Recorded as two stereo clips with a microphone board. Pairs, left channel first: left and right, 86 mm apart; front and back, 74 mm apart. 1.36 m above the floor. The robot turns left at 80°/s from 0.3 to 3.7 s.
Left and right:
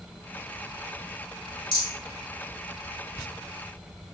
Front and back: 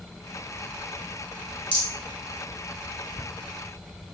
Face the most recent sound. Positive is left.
turn(degrees=-90)